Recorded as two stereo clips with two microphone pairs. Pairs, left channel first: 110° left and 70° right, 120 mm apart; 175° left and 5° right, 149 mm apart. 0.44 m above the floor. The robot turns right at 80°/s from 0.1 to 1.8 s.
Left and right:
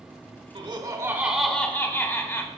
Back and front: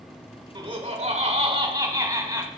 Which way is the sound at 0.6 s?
50° right.